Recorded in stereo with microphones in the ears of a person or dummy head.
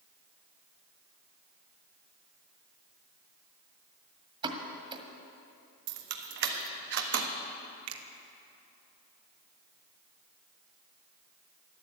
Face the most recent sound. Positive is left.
turn(degrees=-75)  # may be behind; listen again after turning